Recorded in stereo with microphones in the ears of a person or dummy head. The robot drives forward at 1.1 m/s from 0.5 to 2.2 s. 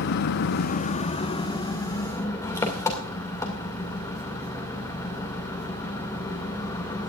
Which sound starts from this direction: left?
An engine running, at 0.0 s.